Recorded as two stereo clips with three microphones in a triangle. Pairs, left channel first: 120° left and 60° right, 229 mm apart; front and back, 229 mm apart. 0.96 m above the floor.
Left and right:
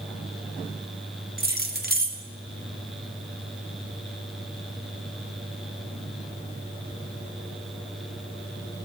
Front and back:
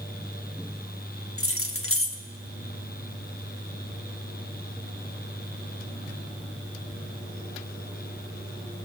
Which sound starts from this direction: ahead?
Keys jangling, at 1.4 s.